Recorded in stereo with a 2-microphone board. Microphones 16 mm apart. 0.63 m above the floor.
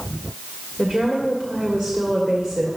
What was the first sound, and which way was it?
A woman speaking, 50° right (ahead or behind).